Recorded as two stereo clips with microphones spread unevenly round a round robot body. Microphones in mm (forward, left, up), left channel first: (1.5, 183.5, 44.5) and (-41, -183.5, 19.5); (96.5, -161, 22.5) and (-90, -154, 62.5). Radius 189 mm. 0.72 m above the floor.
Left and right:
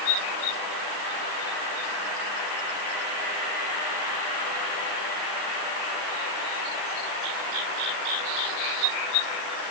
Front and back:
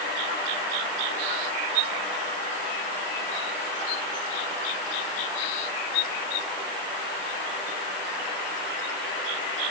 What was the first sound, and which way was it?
Only background noise.